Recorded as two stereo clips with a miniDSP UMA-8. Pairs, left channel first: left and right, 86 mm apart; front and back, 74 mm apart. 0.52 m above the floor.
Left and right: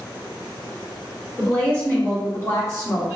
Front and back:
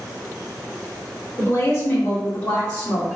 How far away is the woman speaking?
About 1.5 m.